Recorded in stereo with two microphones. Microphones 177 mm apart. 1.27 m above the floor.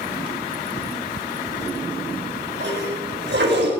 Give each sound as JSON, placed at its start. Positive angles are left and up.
{"t": 1.5, "sound": "a toilet flushing", "side_deg": -90, "distance_m": 4.5}